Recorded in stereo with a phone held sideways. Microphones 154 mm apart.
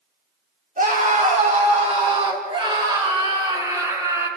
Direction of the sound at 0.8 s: 60° right (ahead or behind).